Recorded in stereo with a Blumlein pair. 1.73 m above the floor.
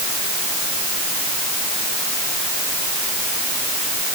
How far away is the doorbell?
No doorbell in this recording.